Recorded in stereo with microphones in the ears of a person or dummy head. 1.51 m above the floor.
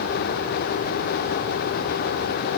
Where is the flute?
No flute in this recording.